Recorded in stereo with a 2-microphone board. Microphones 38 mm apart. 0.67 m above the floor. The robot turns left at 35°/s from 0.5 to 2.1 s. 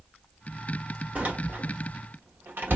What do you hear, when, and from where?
1.1 s a door slam: 45° right (ahead or behind), 1.4 m; by 2.8 s 75° right (ahead or behind), 1.4 m